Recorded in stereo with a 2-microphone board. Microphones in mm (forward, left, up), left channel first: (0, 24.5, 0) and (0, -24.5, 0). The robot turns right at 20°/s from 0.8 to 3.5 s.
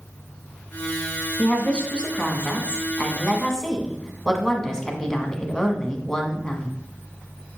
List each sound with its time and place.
1.4 s a woman speaking: 20° left (ahead or behind), 1.1 m; by 6.8 s 10° left (ahead or behind), 1.1 m